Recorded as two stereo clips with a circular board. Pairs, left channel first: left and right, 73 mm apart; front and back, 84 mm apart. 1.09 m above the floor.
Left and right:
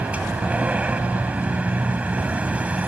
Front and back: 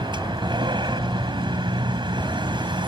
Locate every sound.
0.0 s a vehicle: 160° right